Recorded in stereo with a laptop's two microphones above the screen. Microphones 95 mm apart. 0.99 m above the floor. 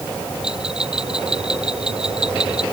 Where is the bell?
10° right (ahead or behind).